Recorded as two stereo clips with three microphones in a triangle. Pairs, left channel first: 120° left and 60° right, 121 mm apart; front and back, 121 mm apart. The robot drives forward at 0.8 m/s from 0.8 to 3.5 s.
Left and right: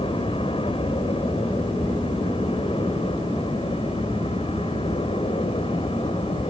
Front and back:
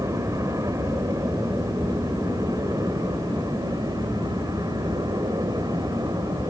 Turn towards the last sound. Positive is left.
turn(degrees=130)